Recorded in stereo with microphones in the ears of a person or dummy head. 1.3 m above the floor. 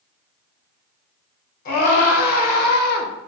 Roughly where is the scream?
Left.